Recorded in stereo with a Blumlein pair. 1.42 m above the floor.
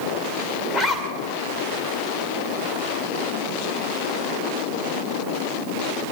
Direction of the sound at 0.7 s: 15° left.